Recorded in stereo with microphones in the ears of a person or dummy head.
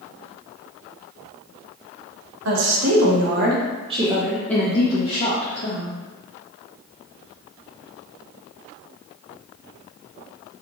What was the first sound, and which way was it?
A woman speaking, 75° right (ahead or behind).